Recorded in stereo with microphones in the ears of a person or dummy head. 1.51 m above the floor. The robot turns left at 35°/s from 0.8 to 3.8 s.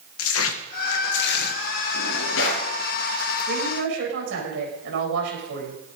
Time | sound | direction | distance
0.2 | tearing paper | 75° left (ahead or behind) | 1.8 m
1.9 | a drawer | 80° left | 8.5 m
3.5 | a woman speaking | 60° right (ahead or behind) | 7.5 m